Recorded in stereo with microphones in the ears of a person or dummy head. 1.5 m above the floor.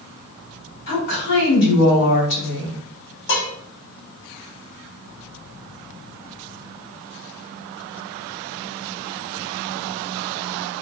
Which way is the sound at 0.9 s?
55° left (ahead or behind).